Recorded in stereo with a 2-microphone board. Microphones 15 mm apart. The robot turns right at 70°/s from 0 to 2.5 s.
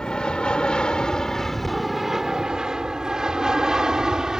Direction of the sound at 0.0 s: 55° left (ahead or behind).